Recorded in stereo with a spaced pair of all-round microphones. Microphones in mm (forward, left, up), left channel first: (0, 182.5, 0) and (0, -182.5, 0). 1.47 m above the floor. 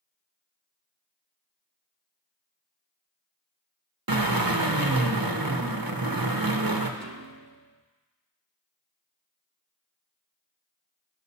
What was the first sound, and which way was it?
A drill, 70° right (ahead or behind).